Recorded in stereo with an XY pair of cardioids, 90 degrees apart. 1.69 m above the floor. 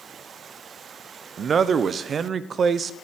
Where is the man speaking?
50° right, 0.6 m.